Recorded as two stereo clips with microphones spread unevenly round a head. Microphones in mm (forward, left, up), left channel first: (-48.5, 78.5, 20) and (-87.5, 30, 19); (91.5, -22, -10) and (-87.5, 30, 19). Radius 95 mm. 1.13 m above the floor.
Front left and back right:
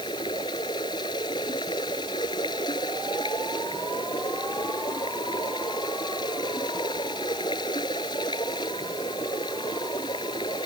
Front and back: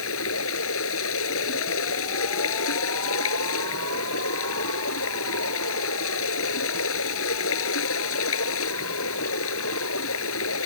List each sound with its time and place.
0.0 s running water: 5° left